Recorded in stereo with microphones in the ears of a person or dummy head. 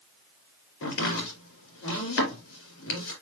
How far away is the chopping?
About 3 m.